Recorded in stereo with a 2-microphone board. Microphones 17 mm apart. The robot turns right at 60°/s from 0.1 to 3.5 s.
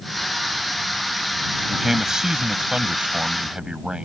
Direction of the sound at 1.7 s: 175° right.